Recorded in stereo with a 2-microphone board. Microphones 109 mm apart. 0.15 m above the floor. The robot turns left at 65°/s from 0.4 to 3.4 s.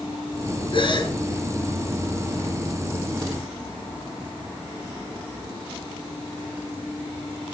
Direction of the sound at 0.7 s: 55° left (ahead or behind).